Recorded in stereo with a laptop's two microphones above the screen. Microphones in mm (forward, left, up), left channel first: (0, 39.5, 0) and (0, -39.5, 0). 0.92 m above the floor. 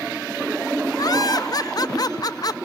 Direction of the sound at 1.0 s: 50° left (ahead or behind).